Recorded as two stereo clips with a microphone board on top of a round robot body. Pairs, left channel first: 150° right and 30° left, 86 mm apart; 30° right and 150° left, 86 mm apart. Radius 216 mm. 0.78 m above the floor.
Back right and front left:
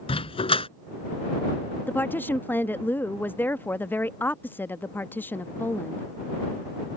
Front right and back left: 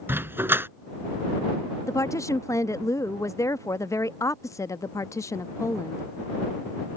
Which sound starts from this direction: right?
A woman speaking, at 1.9 s.